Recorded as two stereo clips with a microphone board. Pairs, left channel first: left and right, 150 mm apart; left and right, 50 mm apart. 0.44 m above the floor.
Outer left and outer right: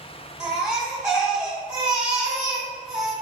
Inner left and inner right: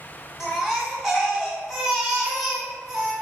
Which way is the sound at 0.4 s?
5° right (ahead or behind).